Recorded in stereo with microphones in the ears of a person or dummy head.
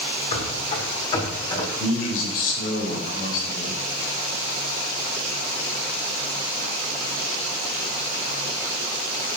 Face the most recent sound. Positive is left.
turn(degrees=55)  # may be behind; listen again after turning